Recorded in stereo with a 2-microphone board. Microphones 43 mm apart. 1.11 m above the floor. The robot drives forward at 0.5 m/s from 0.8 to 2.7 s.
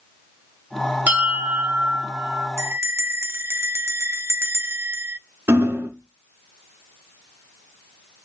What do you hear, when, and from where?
1.1 s a bell: 40° right (ahead or behind), 2.5 m; by 2.5 s 50° right (ahead or behind), 2 m
2.6 s a bell: 80° right, 0.6 m; by 5.2 s 75° right (ahead or behind), 0.6 m
5.5 s hammering: 80° right, 1.8 m